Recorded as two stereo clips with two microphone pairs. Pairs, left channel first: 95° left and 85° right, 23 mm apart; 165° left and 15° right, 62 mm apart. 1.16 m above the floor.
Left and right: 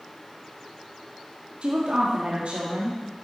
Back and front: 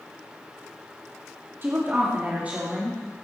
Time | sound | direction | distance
1.6 | a woman speaking | 65° right | 1.8 m